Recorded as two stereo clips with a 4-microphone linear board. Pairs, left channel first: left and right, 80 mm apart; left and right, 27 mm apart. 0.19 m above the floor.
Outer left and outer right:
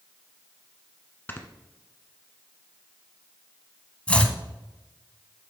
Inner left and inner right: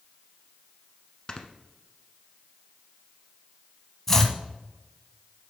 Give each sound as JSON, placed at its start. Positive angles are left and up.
{"t": 1.3, "sound": "snoring", "side_deg": 25, "distance_m": 1.0}
{"t": 4.1, "sound": "chopping", "side_deg": 15, "distance_m": 0.9}